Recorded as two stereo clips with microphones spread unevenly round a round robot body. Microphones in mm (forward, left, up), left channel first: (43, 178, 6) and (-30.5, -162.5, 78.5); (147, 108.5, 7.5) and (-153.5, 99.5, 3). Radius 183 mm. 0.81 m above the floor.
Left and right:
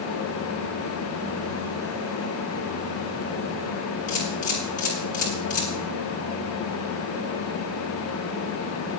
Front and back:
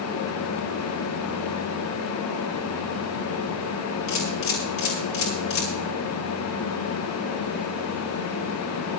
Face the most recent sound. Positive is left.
turn(degrees=10)